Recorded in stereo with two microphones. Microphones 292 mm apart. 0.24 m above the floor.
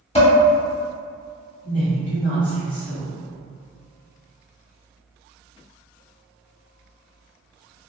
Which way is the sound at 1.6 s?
25° left (ahead or behind).